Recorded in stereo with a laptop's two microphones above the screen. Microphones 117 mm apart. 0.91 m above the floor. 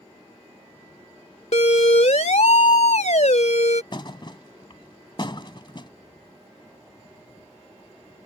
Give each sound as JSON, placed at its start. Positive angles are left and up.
{"t": 1.5, "sound": "a siren", "side_deg": 75}
{"t": 3.9, "sound": "a thud", "side_deg": 45}